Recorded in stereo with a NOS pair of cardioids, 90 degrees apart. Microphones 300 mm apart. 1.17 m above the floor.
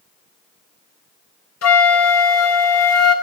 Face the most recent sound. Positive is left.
turn(degrees=60)